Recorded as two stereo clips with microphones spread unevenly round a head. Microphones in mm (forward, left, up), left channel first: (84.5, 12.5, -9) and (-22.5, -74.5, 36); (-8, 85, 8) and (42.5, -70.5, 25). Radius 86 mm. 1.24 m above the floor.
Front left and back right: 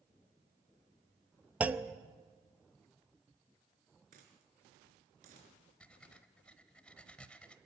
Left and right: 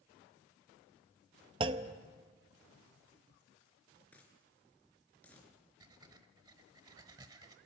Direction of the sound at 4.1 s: 170° right.